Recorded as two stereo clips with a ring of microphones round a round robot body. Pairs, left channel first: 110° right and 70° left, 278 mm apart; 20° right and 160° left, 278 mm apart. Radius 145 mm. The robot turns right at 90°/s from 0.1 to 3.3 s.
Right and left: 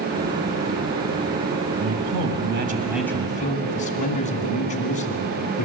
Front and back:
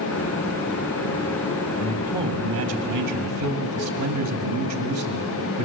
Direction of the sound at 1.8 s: 50° left.